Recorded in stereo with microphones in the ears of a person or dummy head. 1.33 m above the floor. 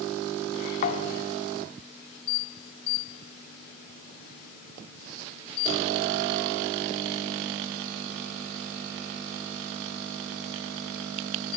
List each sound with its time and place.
0.8 s a thud: 50° left (ahead or behind), 1.7 m